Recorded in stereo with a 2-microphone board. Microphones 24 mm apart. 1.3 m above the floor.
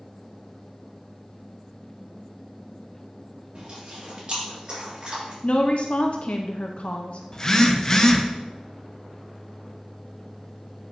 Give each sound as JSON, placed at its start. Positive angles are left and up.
{"t": 3.5, "sound": "chewing", "side_deg": -40, "distance_m": 3.0}
{"t": 5.4, "sound": "a woman speaking", "side_deg": 60, "distance_m": 0.6}
{"t": 7.3, "sound": "a phone buzzing", "side_deg": 30, "distance_m": 0.7}